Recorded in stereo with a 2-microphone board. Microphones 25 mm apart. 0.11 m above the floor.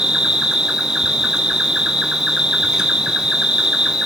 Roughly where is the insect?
Right.